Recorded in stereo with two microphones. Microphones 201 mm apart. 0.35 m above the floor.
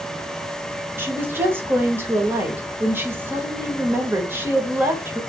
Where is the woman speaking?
10° right (ahead or behind), 1.0 m.